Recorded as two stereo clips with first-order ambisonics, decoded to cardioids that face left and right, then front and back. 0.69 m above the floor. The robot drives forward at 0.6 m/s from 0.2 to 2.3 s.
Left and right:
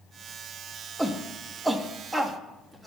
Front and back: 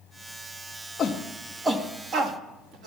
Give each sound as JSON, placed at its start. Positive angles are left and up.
{"t": 1.0, "sound": "a shout", "azimuth_deg": -15, "distance_m": 0.7}